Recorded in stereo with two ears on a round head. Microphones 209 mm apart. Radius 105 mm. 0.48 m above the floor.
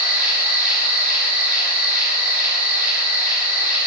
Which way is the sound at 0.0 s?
60° right (ahead or behind).